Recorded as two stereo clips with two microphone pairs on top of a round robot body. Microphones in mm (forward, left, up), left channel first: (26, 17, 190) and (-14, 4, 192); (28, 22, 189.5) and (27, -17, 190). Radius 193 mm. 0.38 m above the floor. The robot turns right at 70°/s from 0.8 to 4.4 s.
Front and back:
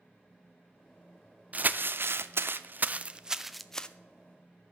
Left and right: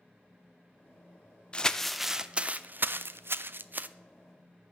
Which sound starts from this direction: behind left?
Crumpling, at 1.5 s.